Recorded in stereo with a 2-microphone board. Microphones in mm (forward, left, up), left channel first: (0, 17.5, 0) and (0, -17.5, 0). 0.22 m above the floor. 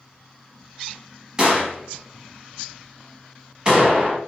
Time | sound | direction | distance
1.4 | a gunshot | 25° right (ahead or behind) | 1.0 m